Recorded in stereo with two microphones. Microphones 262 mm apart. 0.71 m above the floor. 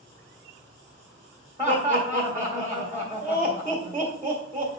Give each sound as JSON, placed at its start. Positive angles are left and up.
{"t": 1.6, "sound": "laughter", "side_deg": -15, "distance_m": 1.6}